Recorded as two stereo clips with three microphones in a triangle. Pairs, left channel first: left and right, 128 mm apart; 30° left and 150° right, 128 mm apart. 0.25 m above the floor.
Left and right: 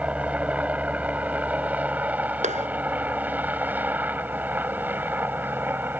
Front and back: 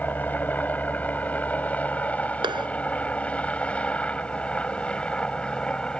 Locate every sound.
0.0 s a helicopter: 25° right; by 6.0 s 40° right
2.4 s a clap: 100° right